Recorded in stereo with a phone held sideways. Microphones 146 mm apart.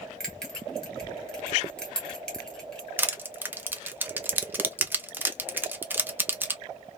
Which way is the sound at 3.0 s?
15° right (ahead or behind).